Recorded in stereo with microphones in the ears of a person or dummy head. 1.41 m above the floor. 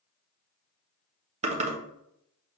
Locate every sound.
1.4 s typing on a keyboard: 35° right (ahead or behind), 0.8 m